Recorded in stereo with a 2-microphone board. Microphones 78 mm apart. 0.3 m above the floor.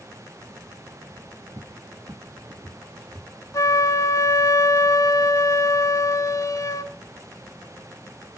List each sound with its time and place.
1.6 s a cupboard door: 70° right (ahead or behind), 1.3 m
3.5 s a flute: 45° left (ahead or behind), 1.0 m